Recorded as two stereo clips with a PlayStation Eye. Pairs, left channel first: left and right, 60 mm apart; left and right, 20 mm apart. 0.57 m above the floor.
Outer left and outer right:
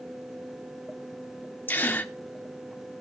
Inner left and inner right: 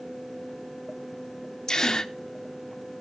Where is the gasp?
30° left (ahead or behind), 0.9 m.